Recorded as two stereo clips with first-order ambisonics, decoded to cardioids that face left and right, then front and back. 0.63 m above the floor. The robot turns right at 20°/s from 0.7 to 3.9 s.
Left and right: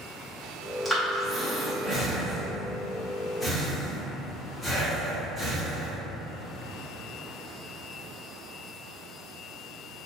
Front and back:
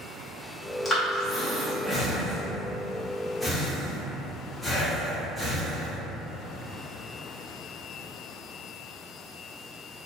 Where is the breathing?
10° left, 0.7 m; by 6.0 s 70° left, 0.7 m.